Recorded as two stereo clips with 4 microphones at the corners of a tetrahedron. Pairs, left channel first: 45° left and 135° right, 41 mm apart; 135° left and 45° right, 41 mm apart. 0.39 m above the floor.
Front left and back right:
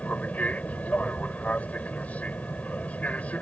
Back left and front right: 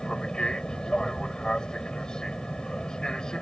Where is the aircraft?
75° left.